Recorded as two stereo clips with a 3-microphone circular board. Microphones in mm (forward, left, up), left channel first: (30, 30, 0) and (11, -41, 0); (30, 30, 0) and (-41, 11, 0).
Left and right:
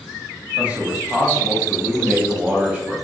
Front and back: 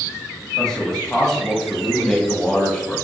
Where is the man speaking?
50° right, 1.0 m.